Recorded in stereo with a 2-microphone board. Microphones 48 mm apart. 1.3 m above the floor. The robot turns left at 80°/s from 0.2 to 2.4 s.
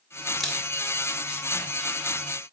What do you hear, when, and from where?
0.4 s a camera shutter: 5° right (ahead or behind), 2.5 m; by 0.6 s 10° left (ahead or behind), 2.5 m